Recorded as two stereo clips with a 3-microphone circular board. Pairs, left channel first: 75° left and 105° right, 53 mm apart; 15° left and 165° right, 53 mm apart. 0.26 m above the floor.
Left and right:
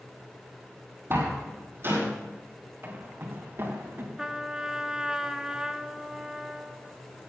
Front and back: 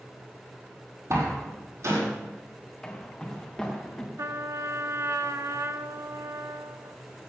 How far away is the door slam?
About 6.5 m.